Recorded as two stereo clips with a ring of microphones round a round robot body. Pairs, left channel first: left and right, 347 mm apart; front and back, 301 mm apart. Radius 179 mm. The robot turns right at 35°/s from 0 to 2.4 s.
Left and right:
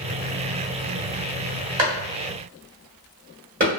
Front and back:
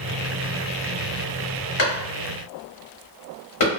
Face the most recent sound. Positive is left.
turn(degrees=-25)